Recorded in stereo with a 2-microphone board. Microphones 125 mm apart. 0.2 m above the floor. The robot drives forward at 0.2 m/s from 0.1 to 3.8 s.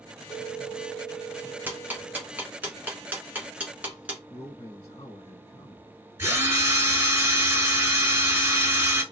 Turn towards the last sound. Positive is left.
turn(degrees=-20)  # may be behind; listen again after turning